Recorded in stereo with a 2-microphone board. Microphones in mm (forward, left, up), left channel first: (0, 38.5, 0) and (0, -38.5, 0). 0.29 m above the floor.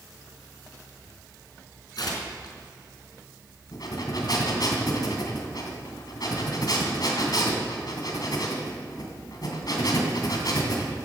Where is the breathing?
60° left (ahead or behind), 2.5 m.